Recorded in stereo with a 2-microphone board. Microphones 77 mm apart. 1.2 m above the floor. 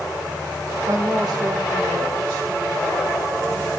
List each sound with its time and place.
0.9 s a woman speaking: 40° right (ahead or behind), 1.4 m; by 3.7 s 70° right (ahead or behind), 3.5 m